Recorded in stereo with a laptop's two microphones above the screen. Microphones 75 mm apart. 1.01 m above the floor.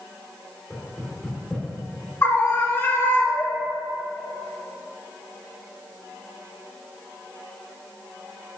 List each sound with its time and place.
0.7 s knocking: 5° left (ahead or behind), 2.0 m
2.2 s a scream: 35° left (ahead or behind), 1.9 m